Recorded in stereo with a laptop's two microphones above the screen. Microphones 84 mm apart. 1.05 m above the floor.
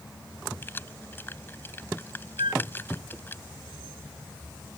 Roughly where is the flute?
Right.